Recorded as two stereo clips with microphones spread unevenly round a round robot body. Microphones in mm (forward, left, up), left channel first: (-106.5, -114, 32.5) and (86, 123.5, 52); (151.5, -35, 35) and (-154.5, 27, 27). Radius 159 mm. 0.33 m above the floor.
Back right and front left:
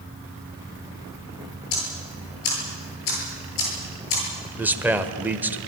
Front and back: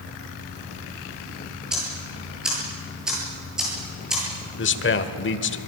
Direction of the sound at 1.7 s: 105° right.